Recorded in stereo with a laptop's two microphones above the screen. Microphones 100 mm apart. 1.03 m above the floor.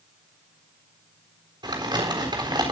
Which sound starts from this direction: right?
Crumpling, at 1.6 s.